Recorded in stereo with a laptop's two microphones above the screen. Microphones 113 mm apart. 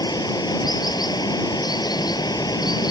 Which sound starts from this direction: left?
Running water, at 0.0 s.